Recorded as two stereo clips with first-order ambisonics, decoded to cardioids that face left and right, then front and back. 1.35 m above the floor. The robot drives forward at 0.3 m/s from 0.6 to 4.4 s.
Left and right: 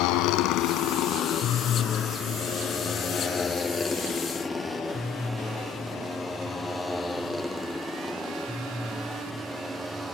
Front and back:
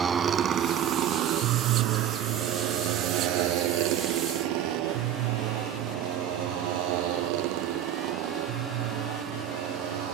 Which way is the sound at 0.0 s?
110° left.